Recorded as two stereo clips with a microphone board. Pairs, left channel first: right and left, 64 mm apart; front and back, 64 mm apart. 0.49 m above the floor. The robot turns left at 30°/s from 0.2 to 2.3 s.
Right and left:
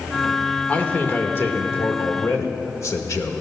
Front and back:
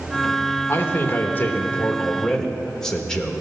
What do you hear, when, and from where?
0.7 s a man speaking: 25° right, 1.1 m; by 3.4 s 75° right, 1.1 m